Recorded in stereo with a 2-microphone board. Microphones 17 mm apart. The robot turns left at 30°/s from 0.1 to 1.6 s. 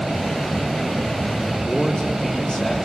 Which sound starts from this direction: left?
A man speaking, at 1.7 s.